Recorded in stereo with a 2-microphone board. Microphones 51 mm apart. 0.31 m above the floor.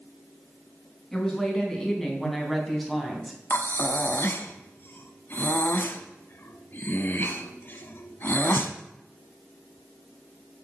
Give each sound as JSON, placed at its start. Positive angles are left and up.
{"t": 1.1, "sound": "a woman speaking", "side_deg": 10, "distance_m": 3.0}
{"t": 3.5, "sound": "breathing", "side_deg": 45, "distance_m": 0.8}